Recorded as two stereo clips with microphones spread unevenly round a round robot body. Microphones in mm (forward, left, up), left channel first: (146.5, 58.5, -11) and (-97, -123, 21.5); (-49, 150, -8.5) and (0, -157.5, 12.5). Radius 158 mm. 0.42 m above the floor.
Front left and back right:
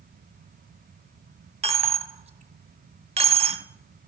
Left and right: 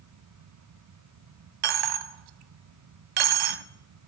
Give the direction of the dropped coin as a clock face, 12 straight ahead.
2 o'clock.